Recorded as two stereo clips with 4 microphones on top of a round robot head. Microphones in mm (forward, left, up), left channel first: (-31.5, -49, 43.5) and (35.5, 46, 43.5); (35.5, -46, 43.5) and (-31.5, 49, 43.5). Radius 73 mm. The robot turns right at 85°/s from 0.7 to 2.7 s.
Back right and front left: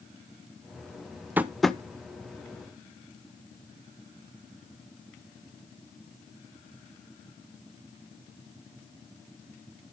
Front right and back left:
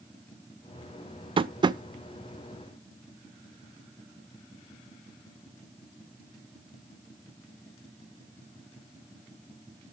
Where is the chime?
I don't hear a chime.